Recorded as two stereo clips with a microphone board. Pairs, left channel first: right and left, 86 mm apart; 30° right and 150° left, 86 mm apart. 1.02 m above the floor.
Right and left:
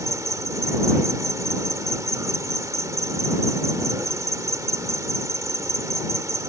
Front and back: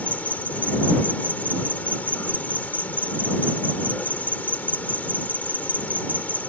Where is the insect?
40° left.